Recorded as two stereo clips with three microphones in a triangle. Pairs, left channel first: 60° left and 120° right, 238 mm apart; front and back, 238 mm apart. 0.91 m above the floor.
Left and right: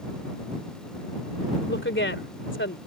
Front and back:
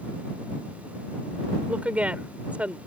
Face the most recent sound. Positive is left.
turn(degrees=95)